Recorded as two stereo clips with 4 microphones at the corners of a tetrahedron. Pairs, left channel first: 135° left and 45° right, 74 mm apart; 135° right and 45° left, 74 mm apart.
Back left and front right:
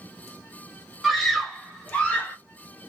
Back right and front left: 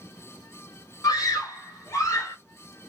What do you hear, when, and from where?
1.0 s a scream: 140° right, 1.8 m; by 2.4 s 165° right, 1.3 m